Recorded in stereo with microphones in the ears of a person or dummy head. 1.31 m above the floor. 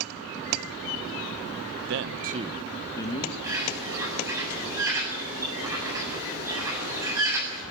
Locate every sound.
1.9 s a man speaking: 70° right (ahead or behind), 1.1 m; by 3.3 s 25° left (ahead or behind), 1.7 m
3.4 s a bird: 15° right (ahead or behind), 8 m